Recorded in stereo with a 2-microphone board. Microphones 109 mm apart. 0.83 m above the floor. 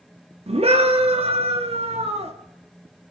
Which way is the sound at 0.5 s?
70° right (ahead or behind).